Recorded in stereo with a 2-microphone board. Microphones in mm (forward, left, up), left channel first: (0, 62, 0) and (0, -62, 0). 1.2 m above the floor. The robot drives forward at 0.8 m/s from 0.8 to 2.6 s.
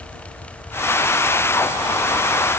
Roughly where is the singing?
I don't hear singing.